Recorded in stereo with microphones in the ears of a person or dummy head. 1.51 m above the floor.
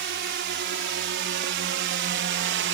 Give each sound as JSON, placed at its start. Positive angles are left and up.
{"t": 0.0, "sound": "a drone", "side_deg": -55}